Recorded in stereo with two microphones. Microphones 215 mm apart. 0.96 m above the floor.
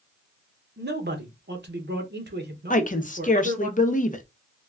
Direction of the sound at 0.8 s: 55° right (ahead or behind).